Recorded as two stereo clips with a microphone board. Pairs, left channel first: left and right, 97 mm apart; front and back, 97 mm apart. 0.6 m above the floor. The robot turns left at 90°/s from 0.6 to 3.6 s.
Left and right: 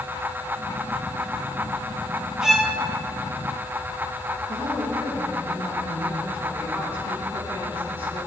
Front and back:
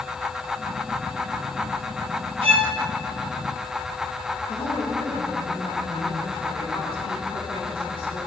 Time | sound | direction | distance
2.4 | a violin | 175° right | 1.6 m
4.5 | a woman speaking | 20° right | 5.5 m